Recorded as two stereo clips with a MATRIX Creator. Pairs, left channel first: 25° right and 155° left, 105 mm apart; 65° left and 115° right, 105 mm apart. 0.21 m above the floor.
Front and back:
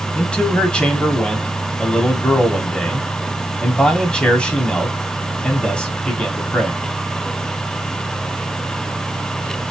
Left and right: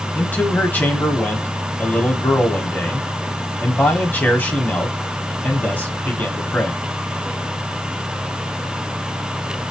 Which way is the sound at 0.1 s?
35° left.